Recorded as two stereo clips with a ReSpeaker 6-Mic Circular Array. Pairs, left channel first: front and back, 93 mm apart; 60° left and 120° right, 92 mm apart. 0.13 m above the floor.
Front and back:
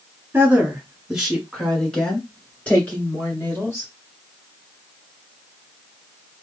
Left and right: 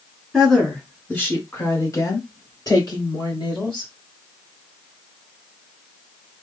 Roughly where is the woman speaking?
Behind left.